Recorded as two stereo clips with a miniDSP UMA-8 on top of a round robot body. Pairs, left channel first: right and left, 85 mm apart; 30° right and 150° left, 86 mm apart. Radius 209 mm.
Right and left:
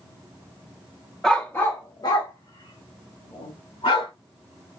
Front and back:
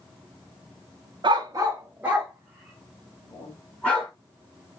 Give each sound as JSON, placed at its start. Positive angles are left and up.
{"t": 1.2, "sound": "a dog barking", "azimuth_deg": -175, "distance_m": 0.9}